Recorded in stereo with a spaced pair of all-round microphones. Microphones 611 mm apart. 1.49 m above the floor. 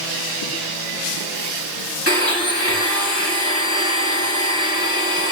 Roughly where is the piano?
I don't hear a piano.